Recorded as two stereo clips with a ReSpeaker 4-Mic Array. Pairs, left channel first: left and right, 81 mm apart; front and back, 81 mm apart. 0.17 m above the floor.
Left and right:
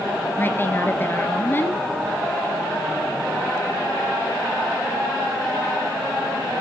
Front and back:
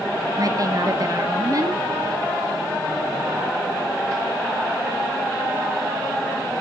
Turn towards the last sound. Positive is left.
turn(degrees=150)